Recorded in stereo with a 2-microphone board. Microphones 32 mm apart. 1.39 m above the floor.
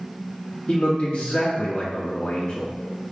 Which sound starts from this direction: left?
A man speaking, at 0.7 s.